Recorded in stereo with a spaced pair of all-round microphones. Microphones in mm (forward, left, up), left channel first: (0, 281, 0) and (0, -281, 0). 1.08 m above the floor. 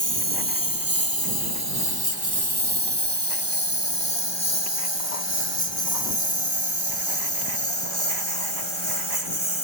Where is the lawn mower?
35° right (ahead or behind); by 9.7 s 55° right (ahead or behind).